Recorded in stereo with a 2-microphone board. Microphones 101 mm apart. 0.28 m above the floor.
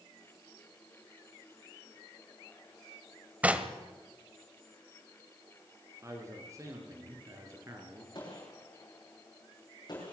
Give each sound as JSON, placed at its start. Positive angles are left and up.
{"t": 3.4, "sound": "knocking", "side_deg": -15, "distance_m": 1.4}
{"t": 6.0, "sound": "a man speaking", "side_deg": -30, "distance_m": 5.0}
{"t": 8.2, "sound": "a gunshot", "side_deg": 45, "distance_m": 7.5}